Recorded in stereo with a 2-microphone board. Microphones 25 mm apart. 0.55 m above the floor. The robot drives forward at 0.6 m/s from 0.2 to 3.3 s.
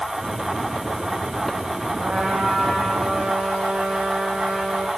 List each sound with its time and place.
2.0 s a trumpet: 70° right (ahead or behind), 7 m; by 4.9 s 75° right (ahead or behind), 6.5 m